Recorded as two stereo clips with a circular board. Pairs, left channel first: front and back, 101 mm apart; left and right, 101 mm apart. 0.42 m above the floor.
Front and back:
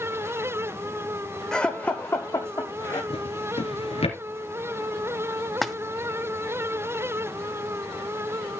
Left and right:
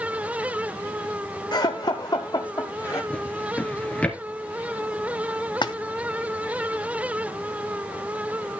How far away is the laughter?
About 1.0 m.